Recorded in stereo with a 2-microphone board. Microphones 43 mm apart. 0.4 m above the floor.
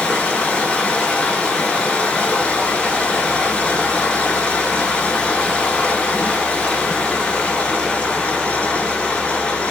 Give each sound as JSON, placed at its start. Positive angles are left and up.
{"t": 0.0, "sound": "running water", "side_deg": 25, "distance_m": 0.8}